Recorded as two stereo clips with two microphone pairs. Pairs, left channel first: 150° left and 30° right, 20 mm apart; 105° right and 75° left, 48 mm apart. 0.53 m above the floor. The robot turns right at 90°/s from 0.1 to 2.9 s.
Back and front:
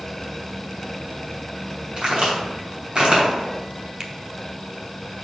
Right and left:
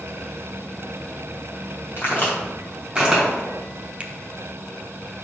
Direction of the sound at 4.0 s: 25° left.